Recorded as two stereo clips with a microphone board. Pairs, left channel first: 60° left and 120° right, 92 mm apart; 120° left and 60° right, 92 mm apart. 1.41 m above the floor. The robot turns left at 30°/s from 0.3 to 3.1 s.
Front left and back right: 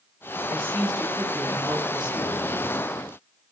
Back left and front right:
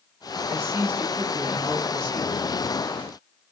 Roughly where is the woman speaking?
Right.